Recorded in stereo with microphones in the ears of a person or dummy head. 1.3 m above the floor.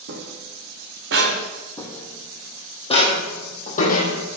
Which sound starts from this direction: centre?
Footsteps, at 1.8 s.